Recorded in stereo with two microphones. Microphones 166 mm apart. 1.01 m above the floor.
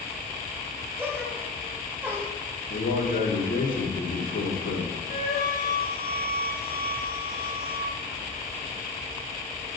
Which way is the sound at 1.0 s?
10° right (ahead or behind).